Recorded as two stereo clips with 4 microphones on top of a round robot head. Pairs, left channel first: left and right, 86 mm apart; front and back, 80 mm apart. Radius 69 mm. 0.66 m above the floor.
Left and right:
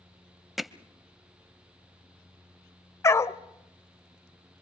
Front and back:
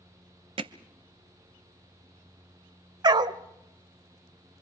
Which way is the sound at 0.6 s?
Straight behind.